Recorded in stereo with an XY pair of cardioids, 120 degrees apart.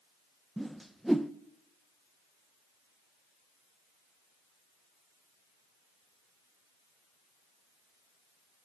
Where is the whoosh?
5° right, 0.6 m.